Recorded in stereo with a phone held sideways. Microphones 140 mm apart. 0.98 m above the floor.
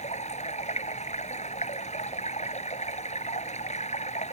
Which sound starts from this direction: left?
Running water, at 0.0 s.